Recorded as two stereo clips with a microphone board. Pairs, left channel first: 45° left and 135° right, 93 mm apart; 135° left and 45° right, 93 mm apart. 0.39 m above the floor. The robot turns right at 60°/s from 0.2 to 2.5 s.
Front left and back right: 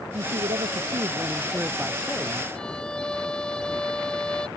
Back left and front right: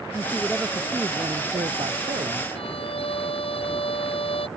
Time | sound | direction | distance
0.1 | a man speaking | 155° right | ?
2.5 | a violin | 125° left | ?